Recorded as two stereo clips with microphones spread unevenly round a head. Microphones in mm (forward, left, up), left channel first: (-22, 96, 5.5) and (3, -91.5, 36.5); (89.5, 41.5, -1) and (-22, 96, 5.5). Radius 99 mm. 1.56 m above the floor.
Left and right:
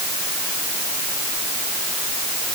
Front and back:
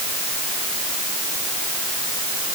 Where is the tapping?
No tapping in this recording.